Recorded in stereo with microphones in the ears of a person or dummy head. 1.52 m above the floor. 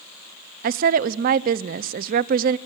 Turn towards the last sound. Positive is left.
turn(degrees=-50)  # may be behind; listen again after turning